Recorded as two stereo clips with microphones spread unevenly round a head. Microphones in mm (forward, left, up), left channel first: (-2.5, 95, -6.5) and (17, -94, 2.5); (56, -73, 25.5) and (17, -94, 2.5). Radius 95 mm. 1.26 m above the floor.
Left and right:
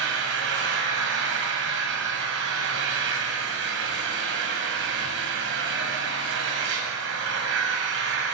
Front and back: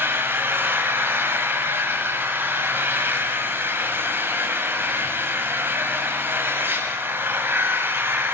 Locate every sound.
0.0 s an engine running: 115° right, 8.5 m